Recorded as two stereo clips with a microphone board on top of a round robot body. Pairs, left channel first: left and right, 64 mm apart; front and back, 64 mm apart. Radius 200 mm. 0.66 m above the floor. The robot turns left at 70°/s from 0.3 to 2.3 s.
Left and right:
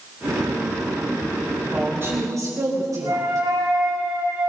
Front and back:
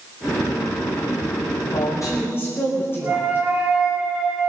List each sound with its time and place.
1.7 s a woman speaking: 5° right, 5 m; by 3.5 s 50° right, 5 m
3.0 s a flute: 115° right, 3.5 m